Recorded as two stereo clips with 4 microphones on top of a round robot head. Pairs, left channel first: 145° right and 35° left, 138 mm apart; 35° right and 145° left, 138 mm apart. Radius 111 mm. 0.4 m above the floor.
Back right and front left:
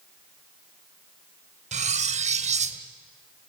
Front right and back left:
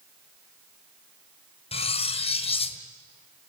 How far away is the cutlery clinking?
About 1.6 m.